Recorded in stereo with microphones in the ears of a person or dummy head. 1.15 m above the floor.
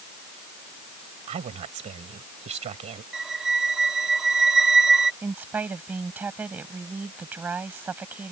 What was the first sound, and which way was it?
A woman speaking, 35° right (ahead or behind).